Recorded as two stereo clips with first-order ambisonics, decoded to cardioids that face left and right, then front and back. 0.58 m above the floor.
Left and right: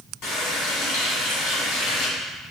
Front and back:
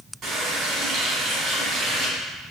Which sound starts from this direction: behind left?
A running tap, at 0.2 s.